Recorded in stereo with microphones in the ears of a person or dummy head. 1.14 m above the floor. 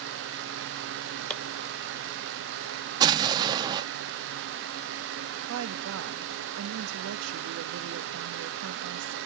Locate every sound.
1.3 s chopping: 10° left (ahead or behind), 1.1 m
3.0 s an explosion: 20° right (ahead or behind), 0.5 m
5.5 s a woman speaking: 70° right (ahead or behind), 0.7 m